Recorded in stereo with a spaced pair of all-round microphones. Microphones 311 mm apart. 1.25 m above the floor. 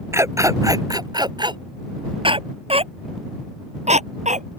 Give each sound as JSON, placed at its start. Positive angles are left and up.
{"t": 0.1, "sound": "a dog barking", "side_deg": -10}